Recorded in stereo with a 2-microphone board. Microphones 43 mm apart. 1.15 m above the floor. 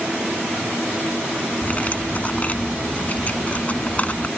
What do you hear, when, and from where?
1.6 s cutlery clinking: 35° left (ahead or behind)